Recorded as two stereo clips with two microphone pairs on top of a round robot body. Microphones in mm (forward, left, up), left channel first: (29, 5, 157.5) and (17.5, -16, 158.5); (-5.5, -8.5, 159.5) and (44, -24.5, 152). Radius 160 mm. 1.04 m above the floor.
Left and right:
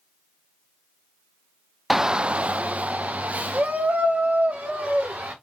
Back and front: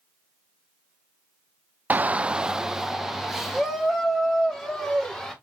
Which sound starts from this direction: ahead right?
A shout, at 1.9 s.